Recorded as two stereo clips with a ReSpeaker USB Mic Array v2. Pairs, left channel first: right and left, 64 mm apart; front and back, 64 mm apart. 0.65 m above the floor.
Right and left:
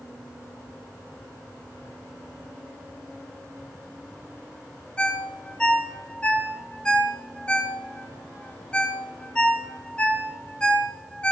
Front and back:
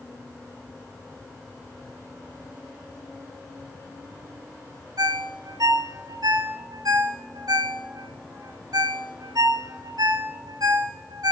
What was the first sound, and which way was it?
A ringtone, 165° right.